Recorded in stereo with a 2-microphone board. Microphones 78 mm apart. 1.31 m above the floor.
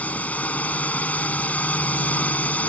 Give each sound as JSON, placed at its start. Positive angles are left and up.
{"t": 0.0, "sound": "a drone", "side_deg": 20}